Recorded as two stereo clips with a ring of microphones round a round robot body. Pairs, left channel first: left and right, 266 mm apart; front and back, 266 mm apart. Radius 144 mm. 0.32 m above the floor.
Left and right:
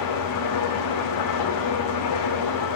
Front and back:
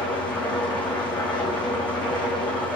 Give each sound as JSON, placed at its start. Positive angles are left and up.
{"t": 0.0, "sound": "an engine running", "azimuth_deg": 85, "distance_m": 6.5}